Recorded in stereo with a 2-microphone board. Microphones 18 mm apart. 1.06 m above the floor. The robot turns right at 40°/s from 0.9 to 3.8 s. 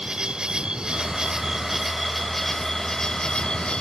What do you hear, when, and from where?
0.0 s an insect: 55° right; by 3.8 s 65° left